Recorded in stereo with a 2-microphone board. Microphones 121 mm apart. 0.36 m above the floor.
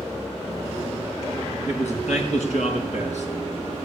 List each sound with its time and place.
1.7 s a man speaking: 70° left (ahead or behind), 4.5 m; by 3.3 s 75° left (ahead or behind), 5 m